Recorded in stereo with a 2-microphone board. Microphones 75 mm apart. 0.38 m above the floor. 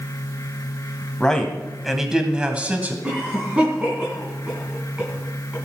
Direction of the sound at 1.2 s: 10° left (ahead or behind).